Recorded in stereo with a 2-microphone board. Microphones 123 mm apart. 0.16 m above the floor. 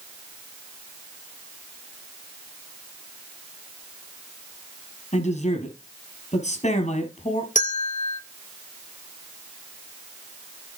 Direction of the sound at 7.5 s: 75° left (ahead or behind).